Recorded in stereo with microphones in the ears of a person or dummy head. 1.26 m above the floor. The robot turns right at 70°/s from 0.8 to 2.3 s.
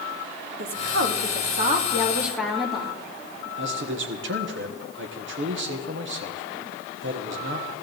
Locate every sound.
0.6 s a woman speaking: 105° right, 2.5 m; by 3.0 s straight ahead, 2.5 m
3.6 s a man speaking: 65° right (ahead or behind), 1.2 m